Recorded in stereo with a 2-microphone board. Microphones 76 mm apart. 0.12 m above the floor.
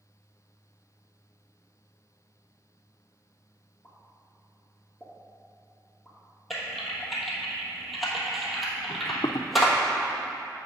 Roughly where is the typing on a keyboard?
Centre.